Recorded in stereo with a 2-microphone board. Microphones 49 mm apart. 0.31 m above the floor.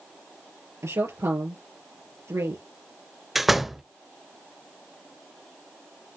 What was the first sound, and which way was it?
A woman speaking, 80° right.